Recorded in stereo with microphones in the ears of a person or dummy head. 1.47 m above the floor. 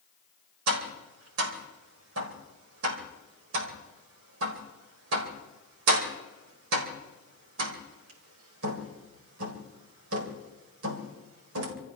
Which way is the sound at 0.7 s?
80° right.